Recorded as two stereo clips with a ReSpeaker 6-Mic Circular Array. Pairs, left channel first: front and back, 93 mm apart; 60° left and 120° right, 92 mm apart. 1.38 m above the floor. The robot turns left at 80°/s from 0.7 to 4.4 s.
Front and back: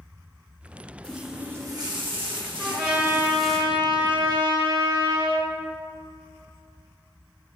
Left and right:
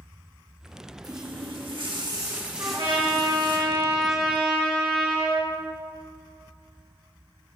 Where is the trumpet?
70° right, 3 m; by 5.5 s 145° left, 3 m.